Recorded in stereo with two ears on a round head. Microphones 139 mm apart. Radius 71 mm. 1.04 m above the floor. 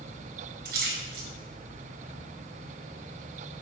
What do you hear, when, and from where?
0.7 s a splash: 75° right (ahead or behind), 3 m